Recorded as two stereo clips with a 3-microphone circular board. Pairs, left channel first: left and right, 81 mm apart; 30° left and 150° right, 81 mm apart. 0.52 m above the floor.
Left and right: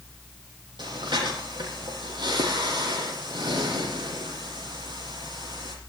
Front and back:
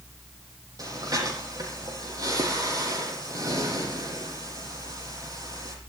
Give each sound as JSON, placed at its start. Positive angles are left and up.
{"t": 0.8, "sound": "breathing", "azimuth_deg": -110, "distance_m": 8.0}